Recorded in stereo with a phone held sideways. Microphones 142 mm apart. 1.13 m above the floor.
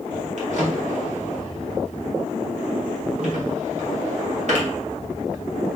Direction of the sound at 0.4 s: 55° right (ahead or behind).